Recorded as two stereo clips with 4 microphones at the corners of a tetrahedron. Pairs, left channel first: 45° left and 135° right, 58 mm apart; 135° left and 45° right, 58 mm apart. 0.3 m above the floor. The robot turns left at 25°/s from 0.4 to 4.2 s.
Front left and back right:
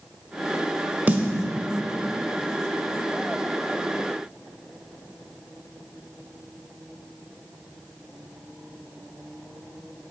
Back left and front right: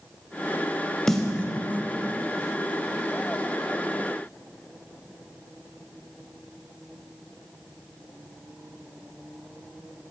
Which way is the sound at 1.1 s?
145° right.